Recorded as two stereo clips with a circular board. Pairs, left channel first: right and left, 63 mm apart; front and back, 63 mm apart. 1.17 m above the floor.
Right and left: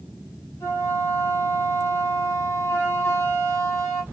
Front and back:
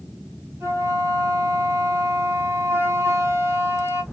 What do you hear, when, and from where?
0.6 s a flute: 130° right, 1.5 m